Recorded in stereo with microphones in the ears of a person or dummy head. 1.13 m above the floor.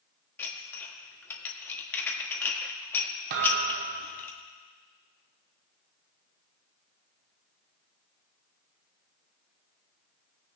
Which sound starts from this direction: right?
A thud, at 3.3 s.